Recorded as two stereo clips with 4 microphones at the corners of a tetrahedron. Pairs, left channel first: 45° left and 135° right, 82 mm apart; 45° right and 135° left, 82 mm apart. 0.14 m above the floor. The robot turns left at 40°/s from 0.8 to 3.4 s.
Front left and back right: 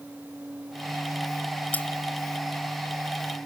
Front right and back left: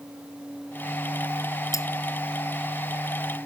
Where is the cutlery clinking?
20° right; by 1.9 s 25° right.